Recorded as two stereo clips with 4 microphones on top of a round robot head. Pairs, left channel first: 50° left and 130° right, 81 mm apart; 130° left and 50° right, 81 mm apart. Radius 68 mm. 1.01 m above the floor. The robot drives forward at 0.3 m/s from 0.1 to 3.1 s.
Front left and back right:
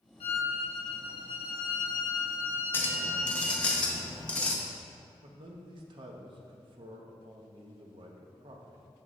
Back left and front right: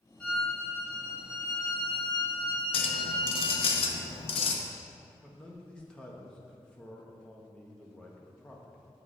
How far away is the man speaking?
About 0.9 m.